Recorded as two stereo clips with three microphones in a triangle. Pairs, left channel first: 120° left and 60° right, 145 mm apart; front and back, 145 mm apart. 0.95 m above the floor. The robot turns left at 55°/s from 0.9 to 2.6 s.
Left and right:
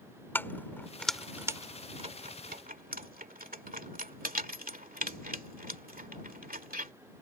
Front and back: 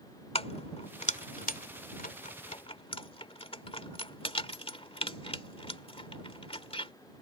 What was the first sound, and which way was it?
Keys jangling, 45° left.